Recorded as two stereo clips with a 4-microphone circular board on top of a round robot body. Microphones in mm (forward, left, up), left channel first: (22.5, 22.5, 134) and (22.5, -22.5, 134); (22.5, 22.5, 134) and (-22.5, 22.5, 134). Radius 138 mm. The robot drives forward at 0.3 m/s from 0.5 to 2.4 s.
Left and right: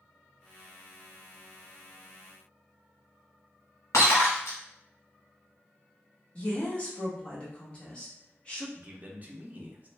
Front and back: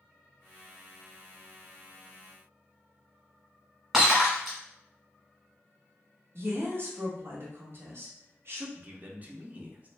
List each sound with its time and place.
3.9 s breaking glass: 100° left, 1.0 m
6.3 s a woman speaking: 155° left, 1.1 m
8.8 s a man speaking: 135° right, 0.8 m